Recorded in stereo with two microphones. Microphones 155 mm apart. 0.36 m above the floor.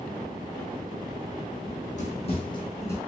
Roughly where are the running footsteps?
Left.